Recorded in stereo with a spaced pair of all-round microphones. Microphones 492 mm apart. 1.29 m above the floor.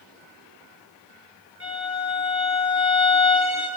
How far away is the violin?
About 7.5 m.